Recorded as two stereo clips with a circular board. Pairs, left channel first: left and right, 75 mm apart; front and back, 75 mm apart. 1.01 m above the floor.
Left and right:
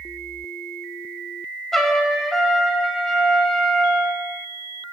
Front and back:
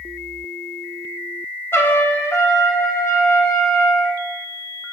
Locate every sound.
1.7 s a trumpet: 10° left, 0.8 m